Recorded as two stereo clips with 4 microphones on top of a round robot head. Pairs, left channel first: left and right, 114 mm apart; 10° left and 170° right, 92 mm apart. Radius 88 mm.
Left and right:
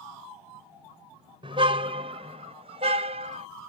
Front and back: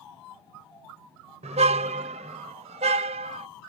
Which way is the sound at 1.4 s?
145° right.